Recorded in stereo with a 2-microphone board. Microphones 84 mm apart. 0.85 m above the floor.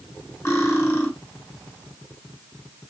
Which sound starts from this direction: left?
Cutlery clinking, at 0.5 s.